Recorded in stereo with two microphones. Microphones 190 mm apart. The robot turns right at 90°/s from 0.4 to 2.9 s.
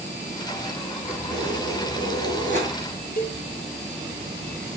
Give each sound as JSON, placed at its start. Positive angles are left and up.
{"t": 1.1, "sound": "keys jangling", "azimuth_deg": -175, "distance_m": 3.0}
{"t": 3.2, "sound": "a cowbell", "side_deg": 55, "distance_m": 1.8}